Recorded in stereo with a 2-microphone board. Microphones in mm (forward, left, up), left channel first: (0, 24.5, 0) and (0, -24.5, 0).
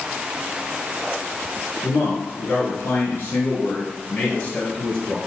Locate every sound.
1.8 s a man speaking: 55° left (ahead or behind), 2 m; by 5.2 s 20° left (ahead or behind), 2 m